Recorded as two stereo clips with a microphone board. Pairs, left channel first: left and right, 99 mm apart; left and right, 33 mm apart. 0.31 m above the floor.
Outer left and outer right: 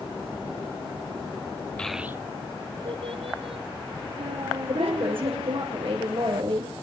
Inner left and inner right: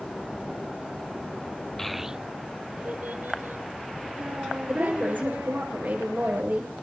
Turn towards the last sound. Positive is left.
turn(degrees=-65)  # may be behind; listen again after turning